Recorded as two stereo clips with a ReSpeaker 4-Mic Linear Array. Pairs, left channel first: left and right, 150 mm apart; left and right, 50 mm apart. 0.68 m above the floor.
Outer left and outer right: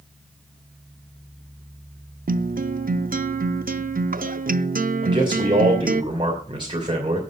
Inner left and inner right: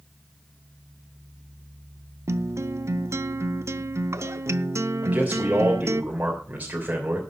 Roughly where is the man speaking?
Right.